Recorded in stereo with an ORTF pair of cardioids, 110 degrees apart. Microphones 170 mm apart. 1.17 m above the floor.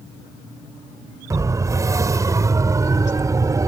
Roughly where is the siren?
Ahead.